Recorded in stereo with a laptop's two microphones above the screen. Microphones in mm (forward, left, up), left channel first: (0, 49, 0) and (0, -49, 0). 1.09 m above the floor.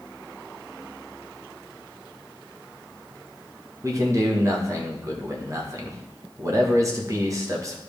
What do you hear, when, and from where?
3.8 s a man speaking: 35° right (ahead or behind), 1.3 m